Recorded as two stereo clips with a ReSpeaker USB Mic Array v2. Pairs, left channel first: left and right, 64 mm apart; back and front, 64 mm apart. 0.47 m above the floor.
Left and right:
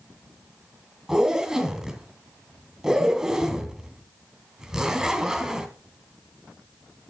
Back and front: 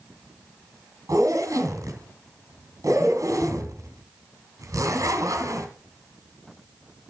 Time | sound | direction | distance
1.1 | a zipper | 10° right | 3 m